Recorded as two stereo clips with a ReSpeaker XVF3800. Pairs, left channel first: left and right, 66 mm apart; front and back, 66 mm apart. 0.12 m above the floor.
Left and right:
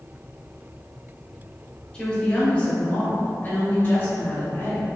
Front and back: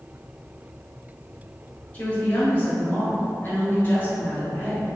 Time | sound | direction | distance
1.9 | a woman speaking | 35° left | 1.6 m